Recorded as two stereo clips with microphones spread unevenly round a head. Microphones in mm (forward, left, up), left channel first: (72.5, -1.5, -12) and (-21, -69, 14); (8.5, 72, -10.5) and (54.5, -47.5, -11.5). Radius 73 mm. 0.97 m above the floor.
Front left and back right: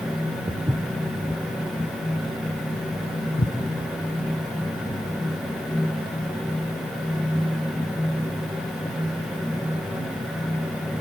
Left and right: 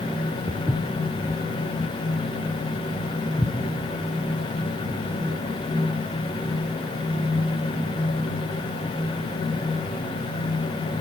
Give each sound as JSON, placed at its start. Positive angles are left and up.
{"t": 0.5, "sound": "footsteps", "azimuth_deg": -175, "distance_m": 1.7}